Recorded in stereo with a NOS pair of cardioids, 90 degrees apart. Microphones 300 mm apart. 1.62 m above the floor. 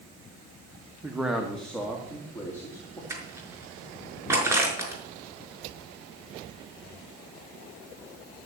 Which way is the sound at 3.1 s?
10° right.